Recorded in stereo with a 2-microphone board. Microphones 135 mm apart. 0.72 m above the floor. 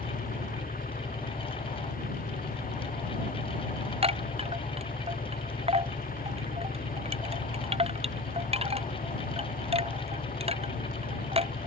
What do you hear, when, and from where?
0.0 s an engine running: 85° left
4.0 s a chime: 45° right (ahead or behind)